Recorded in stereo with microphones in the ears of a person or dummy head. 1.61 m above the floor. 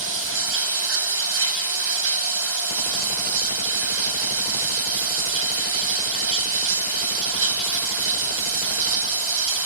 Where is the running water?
70° right (ahead or behind), 1.4 m.